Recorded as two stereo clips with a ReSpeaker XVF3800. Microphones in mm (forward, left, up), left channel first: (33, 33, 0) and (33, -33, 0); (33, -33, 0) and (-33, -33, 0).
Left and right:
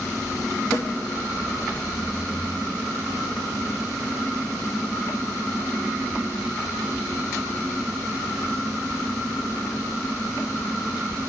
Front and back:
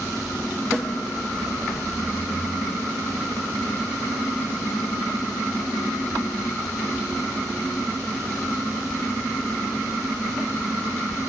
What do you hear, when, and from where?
0.7 s a snare drum: 70° left, 3.5 m